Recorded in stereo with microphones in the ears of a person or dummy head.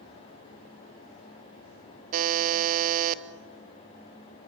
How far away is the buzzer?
About 0.9 m.